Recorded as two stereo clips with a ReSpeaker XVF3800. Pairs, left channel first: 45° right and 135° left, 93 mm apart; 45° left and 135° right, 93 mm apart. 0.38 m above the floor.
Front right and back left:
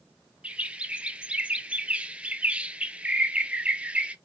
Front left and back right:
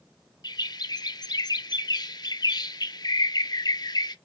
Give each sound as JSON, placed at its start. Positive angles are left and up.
{"t": 0.4, "sound": "a bird", "azimuth_deg": 65, "distance_m": 0.5}